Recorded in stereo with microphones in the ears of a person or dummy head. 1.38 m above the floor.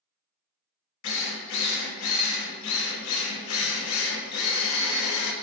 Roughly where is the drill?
Left.